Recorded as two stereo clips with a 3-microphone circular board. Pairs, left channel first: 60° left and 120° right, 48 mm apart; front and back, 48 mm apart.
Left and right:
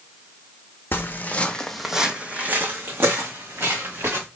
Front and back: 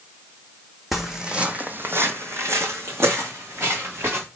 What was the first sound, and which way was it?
Footsteps, 95° left.